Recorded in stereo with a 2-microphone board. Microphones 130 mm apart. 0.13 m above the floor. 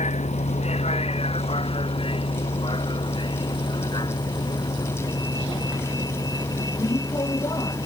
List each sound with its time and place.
0.0 s a vehicle: 65° left (ahead or behind); by 7.9 s 30° left (ahead or behind)